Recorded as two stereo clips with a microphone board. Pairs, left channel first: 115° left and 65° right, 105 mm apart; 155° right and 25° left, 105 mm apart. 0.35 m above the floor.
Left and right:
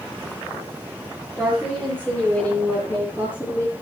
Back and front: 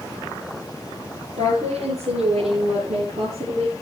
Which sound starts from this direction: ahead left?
A woman speaking, at 1.4 s.